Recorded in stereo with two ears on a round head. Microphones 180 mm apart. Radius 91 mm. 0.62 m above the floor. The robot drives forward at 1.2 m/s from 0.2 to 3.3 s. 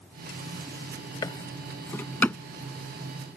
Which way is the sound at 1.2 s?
20° left (ahead or behind).